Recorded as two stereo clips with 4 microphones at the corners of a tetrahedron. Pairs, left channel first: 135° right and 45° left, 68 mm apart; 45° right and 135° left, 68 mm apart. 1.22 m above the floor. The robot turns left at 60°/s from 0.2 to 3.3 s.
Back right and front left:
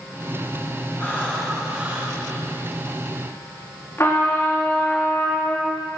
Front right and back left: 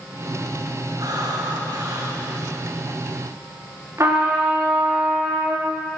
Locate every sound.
1.0 s breathing: 165° left, 3.5 m; by 2.2 s 95° left, 3.5 m
4.0 s a trumpet: 175° left, 3 m